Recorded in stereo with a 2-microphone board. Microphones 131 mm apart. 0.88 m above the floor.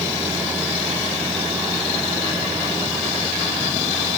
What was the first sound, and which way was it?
Only background noise.